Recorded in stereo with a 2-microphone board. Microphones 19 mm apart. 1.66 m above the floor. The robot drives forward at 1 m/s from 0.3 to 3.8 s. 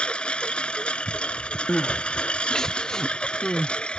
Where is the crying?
50° left (ahead or behind); by 3.7 s 30° left (ahead or behind).